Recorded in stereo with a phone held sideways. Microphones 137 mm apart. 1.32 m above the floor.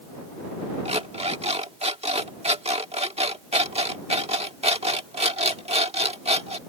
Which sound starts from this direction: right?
An alarm clock, at 0.8 s.